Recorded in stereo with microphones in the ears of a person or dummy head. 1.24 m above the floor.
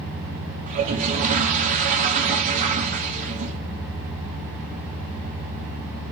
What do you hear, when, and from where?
0.7 s a toilet flushing: 35° right (ahead or behind), 1.6 m